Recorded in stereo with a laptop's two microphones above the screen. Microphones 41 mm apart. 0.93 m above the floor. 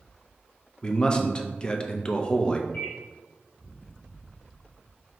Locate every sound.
0.8 s a man speaking: 20° left (ahead or behind), 0.6 m
2.7 s a microwave: 50° left (ahead or behind), 1.2 m